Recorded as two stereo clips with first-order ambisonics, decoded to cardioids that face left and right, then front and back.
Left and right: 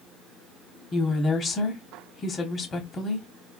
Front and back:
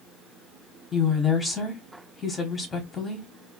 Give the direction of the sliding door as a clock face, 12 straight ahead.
I don't hear a sliding door.